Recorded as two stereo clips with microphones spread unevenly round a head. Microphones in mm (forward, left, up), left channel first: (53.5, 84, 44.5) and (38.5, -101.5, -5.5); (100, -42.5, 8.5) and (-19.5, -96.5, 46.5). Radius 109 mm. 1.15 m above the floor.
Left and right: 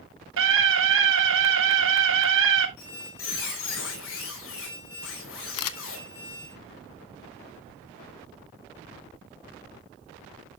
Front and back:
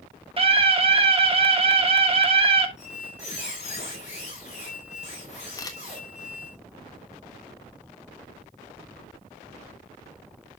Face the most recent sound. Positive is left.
turn(degrees=95)